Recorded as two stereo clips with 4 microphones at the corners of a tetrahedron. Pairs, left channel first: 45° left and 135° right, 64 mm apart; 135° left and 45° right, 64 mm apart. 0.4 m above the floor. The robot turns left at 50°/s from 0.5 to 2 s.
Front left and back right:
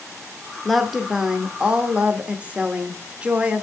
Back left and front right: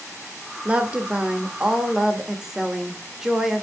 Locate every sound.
0.7 s a woman speaking: 45° right, 0.8 m; by 3.6 s 115° right, 0.8 m